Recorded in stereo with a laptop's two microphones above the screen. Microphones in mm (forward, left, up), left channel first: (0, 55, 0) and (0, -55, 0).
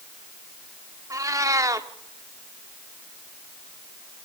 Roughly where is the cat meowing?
Right.